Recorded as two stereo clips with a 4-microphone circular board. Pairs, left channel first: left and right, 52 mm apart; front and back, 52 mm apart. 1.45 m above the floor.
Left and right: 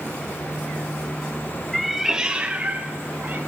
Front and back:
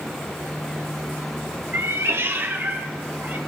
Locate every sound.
1.7 s a cat meowing: 175° left, 1.1 m; by 3.4 s 135° right, 3 m